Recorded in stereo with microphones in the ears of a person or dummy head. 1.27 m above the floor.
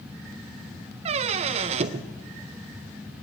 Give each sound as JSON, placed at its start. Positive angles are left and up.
{"t": 1.1, "sound": "a squeak", "side_deg": -40, "distance_m": 0.5}